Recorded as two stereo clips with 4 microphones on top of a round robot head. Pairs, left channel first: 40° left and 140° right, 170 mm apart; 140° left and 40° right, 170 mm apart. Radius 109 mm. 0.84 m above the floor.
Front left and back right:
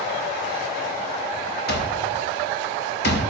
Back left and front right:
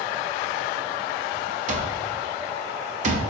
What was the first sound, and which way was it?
An alarm clock, 10° left.